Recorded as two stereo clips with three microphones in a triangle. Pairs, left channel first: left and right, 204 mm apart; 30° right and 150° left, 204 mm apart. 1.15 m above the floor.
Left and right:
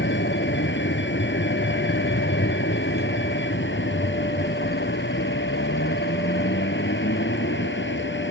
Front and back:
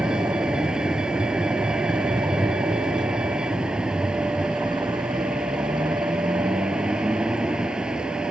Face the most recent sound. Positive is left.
turn(degrees=65)